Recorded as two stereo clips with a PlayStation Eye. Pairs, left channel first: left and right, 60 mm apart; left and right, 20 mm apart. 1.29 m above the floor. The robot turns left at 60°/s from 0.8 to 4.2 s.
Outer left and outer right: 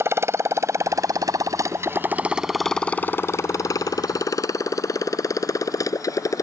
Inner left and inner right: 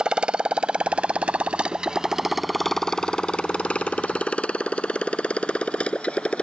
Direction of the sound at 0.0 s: 45° right (ahead or behind).